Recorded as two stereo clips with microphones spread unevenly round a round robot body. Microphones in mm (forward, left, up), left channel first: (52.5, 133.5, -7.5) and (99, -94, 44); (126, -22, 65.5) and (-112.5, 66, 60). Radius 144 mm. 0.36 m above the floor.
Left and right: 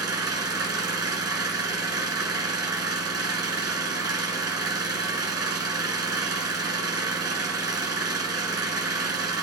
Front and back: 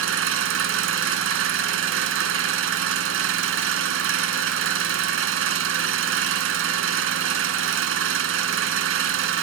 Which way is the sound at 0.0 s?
155° right.